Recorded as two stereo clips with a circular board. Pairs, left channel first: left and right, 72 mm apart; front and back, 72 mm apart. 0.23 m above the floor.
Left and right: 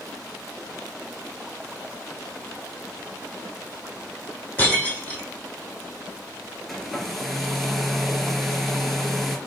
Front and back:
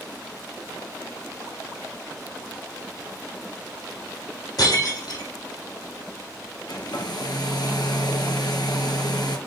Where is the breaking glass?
20° left, 6.5 m.